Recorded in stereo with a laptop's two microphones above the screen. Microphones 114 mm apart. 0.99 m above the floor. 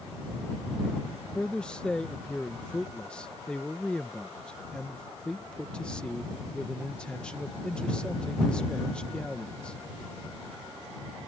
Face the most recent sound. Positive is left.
turn(degrees=10)  # may be behind; listen again after turning